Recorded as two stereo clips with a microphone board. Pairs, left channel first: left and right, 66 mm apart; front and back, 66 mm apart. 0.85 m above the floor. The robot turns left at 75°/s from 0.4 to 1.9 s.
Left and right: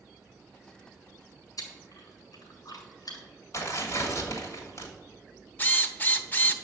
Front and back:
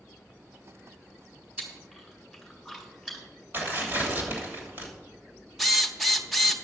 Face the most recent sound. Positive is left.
turn(degrees=85)